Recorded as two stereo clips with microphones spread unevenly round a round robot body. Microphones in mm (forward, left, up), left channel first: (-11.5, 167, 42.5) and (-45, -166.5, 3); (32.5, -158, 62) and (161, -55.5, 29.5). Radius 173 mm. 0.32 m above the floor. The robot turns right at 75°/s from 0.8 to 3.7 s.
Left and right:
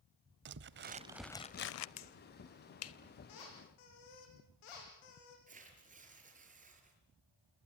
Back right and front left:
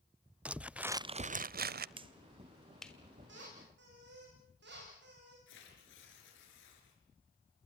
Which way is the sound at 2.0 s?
55° left.